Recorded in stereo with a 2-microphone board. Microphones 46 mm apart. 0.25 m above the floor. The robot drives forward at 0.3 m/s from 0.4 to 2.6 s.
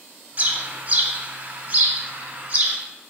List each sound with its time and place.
0.4 s a bird: 35° right (ahead or behind), 0.9 m; by 2.8 s 30° right (ahead or behind), 1.2 m